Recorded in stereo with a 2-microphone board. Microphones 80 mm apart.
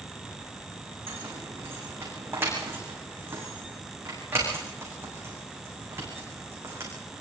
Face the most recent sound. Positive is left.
turn(degrees=-30)  # may be behind; listen again after turning